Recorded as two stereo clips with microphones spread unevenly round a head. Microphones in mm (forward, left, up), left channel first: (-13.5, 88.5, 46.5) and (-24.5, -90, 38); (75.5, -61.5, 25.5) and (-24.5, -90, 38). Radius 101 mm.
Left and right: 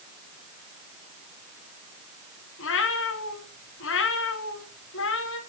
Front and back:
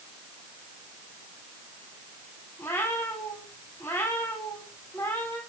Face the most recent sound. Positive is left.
turn(degrees=95)